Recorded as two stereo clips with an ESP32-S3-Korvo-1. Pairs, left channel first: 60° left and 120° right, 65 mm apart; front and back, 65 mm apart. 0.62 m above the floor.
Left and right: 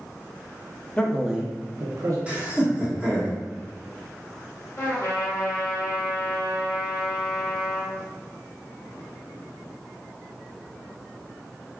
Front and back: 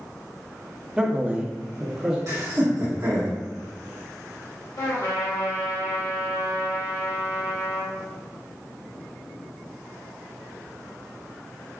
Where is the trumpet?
5° left, 1.8 m.